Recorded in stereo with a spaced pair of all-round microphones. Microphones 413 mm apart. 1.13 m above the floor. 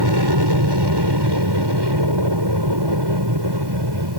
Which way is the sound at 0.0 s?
70° right (ahead or behind).